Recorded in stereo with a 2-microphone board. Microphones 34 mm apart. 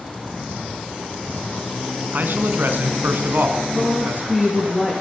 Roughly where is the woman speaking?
Centre.